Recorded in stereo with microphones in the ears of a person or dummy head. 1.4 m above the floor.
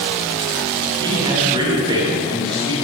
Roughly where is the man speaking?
Right.